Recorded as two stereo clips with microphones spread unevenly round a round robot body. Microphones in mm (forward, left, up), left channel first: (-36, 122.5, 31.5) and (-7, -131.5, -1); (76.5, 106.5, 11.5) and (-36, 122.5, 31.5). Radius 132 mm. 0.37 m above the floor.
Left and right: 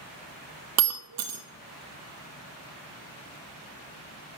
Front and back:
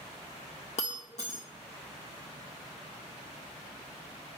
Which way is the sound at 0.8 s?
55° right.